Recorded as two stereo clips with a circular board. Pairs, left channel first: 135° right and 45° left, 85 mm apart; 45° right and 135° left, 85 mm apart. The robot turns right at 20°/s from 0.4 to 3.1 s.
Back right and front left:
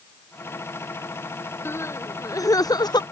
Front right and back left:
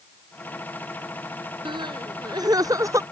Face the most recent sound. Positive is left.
turn(degrees=-165)